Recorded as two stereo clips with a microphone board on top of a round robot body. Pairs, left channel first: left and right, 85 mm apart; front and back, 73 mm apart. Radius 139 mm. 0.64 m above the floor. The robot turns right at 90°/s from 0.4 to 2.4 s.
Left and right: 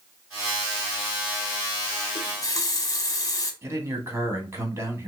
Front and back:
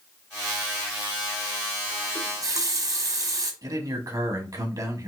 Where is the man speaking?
150° right, 1.8 m.